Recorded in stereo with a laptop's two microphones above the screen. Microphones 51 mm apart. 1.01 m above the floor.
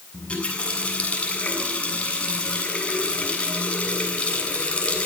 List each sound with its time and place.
0.1 s a running tap: 20° left (ahead or behind), 7.5 m